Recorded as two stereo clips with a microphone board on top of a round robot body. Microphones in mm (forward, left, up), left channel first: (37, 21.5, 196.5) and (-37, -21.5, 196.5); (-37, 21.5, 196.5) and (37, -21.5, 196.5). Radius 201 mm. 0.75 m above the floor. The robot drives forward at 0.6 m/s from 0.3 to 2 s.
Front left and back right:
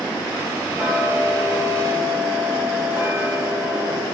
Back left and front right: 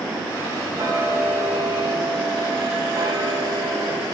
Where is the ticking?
80° right, 7 m; by 4.0 s 85° right, 7 m.